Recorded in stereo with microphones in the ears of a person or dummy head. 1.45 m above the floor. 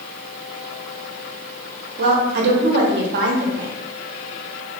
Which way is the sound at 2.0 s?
60° right (ahead or behind).